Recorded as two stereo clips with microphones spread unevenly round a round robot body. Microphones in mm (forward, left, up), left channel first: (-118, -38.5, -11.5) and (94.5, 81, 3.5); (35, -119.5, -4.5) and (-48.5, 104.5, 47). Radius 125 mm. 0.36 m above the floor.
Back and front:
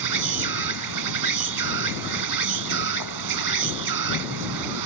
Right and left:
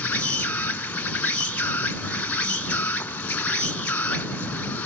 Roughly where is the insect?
Ahead.